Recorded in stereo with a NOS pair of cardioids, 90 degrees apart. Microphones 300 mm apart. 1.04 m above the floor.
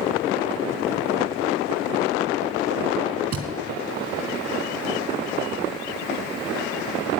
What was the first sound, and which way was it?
A thud, 55° right.